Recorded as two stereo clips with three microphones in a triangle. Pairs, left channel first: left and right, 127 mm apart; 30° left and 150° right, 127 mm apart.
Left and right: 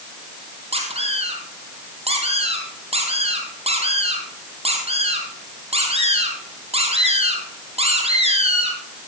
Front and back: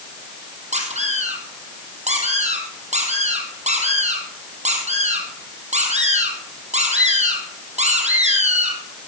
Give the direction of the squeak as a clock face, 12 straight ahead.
4 o'clock.